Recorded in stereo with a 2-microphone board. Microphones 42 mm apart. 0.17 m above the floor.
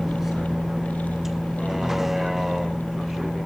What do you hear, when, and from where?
0.0 s a vehicle: 5° right (ahead or behind)